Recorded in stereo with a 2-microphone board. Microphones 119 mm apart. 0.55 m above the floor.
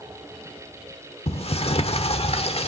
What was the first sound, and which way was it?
A sliding door, 50° left (ahead or behind).